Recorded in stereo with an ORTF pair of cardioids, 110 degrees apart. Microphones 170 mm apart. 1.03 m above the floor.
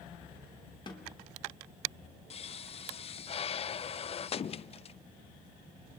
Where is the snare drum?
25° left, 3 m.